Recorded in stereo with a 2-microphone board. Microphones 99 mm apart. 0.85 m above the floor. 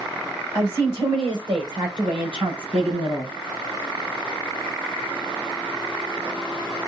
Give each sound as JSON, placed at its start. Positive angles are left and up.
{"t": 0.5, "sound": "a woman speaking", "side_deg": -40, "distance_m": 3.5}